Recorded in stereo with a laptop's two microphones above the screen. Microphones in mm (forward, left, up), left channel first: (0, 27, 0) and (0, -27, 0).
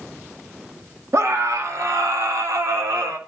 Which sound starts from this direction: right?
A scream, at 1.1 s.